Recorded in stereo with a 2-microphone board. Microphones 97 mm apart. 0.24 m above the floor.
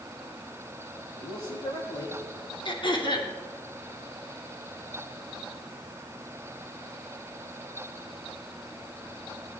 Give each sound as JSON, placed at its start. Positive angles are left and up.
{"t": 1.2, "sound": "a man speaking", "side_deg": 45, "distance_m": 7.5}
{"t": 2.6, "sound": "throat clearing", "side_deg": 55, "distance_m": 2.5}